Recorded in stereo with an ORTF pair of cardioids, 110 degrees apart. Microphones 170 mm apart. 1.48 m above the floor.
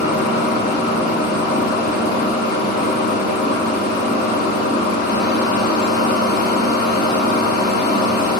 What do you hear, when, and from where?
0.0 s a machine running: 70° left, 0.8 m